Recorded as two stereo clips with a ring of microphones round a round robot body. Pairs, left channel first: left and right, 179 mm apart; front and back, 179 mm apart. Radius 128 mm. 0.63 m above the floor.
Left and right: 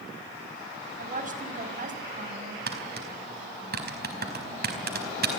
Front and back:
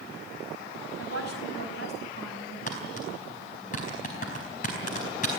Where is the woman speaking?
50° right, 5 m.